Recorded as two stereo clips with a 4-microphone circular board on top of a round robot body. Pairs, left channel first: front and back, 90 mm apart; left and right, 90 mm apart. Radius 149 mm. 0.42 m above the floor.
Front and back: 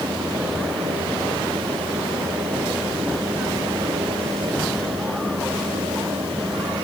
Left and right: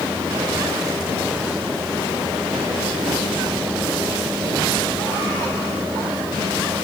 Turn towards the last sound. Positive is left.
No sound to turn to.